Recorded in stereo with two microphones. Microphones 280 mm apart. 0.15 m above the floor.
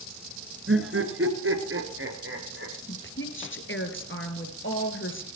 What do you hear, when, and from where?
0.7 s laughter: 50° right (ahead or behind), 2 m; by 2.7 s 45° right (ahead or behind), 4 m
2.9 s a woman speaking: 45° left (ahead or behind), 2.5 m